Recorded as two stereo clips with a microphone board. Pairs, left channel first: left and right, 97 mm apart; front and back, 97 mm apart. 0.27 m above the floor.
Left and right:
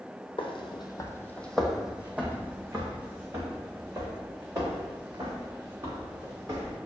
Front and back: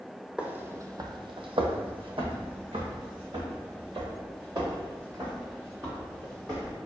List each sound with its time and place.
0.4 s footsteps: 100° left, 0.6 m; by 6.8 s 135° right, 3.5 m